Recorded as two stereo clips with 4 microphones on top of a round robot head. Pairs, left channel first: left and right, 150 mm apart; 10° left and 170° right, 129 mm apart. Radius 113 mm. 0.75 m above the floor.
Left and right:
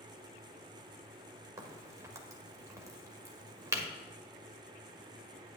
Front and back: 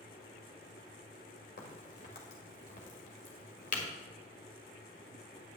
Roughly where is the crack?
Ahead.